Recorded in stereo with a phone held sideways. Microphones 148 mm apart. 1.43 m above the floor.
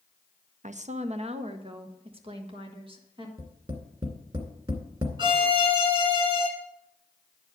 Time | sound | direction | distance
0.6 | a woman speaking | 55° right (ahead or behind) | 0.6 m
3.4 | tapping | 35° right (ahead or behind) | 2 m
5.2 | a violin | 30° right (ahead or behind) | 1.9 m